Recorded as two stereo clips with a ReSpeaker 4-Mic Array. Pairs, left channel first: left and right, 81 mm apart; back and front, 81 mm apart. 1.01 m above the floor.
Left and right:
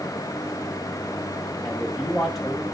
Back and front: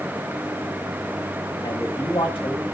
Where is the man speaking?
Straight behind, 5 m.